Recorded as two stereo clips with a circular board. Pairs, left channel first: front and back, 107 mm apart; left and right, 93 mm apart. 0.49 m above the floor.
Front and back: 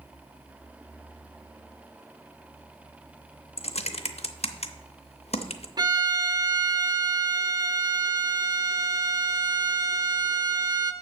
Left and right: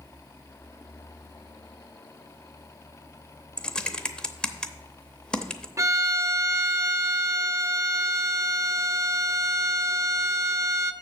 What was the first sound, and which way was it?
Typing on a keyboard, 10° left.